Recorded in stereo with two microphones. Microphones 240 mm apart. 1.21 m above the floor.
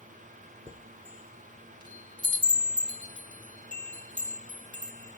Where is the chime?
20° right (ahead or behind), 2.5 m.